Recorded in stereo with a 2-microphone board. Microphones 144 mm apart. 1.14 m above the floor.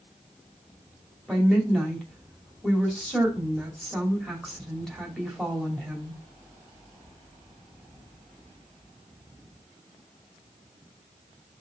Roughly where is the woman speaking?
Centre.